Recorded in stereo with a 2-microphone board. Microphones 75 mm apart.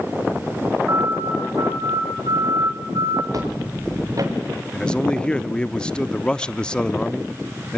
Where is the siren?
35° right (ahead or behind), 3.5 m; by 3.2 s 75° right (ahead or behind), 3 m.